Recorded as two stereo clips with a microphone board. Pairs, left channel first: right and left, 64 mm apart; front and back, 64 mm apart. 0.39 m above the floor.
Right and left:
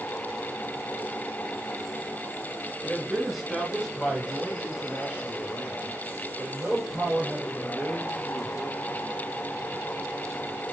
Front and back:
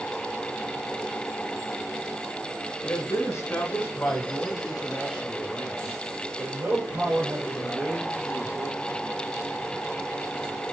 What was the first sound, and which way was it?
A man speaking, 5° right.